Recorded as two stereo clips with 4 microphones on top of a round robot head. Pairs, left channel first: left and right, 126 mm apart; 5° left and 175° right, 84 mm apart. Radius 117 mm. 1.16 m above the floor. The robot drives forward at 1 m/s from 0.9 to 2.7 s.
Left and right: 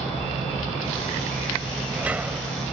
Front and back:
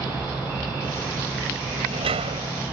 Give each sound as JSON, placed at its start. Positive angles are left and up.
{"t": 1.6, "sound": "a sliding door", "azimuth_deg": -170}